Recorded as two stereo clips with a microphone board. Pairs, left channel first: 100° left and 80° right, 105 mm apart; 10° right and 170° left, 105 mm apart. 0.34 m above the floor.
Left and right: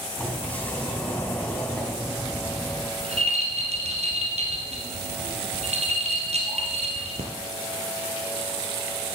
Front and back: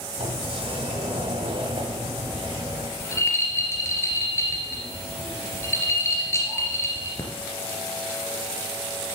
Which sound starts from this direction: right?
A rattle, at 3.0 s.